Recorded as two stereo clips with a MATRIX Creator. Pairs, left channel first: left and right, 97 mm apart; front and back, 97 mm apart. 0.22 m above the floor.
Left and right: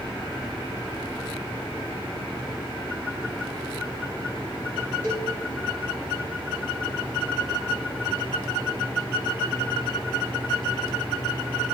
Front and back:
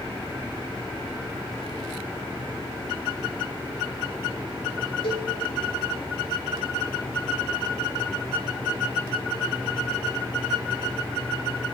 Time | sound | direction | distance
5.0 | a cowbell | 25° left | 3 m